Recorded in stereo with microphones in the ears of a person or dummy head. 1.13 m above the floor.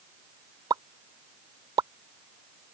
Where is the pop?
25° right (ahead or behind).